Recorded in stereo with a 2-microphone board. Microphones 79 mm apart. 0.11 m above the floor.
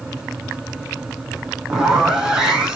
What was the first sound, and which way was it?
A zipper, 10° right (ahead or behind).